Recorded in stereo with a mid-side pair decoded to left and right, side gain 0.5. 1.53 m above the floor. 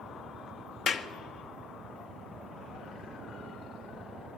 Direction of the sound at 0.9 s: 60° left.